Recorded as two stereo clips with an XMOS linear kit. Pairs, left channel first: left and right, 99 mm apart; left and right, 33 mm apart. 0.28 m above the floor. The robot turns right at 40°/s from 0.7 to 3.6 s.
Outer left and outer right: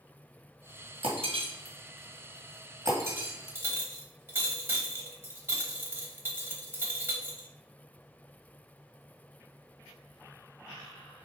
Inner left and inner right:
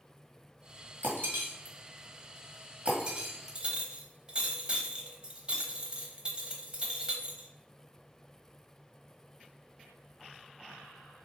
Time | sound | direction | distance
1.0 | breaking glass | 75° right (ahead or behind) | 1.7 m
3.5 | a clink | 25° right (ahead or behind) | 0.9 m